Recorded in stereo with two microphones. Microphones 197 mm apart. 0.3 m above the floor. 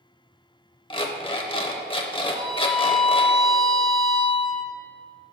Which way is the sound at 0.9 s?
25° left (ahead or behind).